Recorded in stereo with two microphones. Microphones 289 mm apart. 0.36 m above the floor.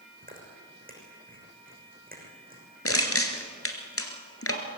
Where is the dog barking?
No dog barking in this recording.